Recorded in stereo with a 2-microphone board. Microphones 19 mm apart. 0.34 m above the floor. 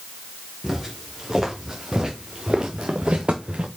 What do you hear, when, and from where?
0.6 s footsteps: 15° right (ahead or behind), 4.5 m; by 3.7 s 80° right, 1.8 m